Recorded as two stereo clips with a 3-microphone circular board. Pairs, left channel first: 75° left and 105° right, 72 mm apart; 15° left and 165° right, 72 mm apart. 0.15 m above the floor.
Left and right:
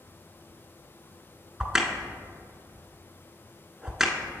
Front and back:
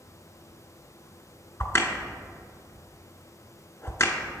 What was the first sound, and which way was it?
A crack, 25° right.